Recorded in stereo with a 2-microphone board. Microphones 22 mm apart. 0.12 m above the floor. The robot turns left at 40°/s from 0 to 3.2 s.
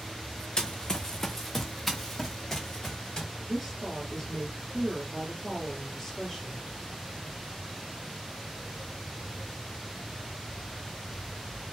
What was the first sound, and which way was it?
Running footsteps, 35° left (ahead or behind).